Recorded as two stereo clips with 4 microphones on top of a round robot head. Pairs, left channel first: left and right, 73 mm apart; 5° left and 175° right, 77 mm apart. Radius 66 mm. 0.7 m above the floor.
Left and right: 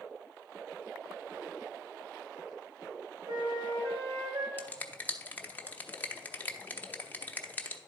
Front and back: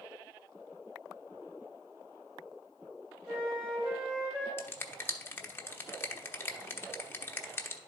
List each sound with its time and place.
3.3 s a flute: 90° right, 2.5 m
4.6 s a finger snap: 40° left, 1.0 m